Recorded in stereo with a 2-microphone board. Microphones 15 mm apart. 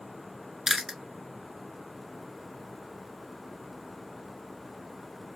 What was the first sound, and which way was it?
Chewing, 25° right (ahead or behind).